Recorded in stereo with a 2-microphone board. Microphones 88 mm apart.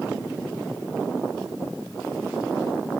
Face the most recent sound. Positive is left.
No sound to turn to.